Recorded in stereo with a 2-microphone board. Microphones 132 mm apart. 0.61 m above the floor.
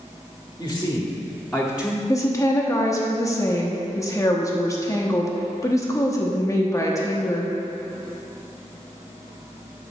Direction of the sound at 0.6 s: 25° left (ahead or behind).